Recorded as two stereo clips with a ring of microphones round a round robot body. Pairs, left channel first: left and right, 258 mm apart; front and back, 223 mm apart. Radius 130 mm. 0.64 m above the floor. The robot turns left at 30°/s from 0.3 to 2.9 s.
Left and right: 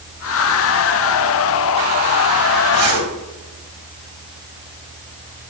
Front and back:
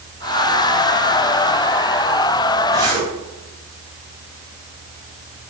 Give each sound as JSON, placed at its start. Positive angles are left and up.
{"t": 2.7, "sound": "a zipper", "azimuth_deg": -105, "distance_m": 3.5}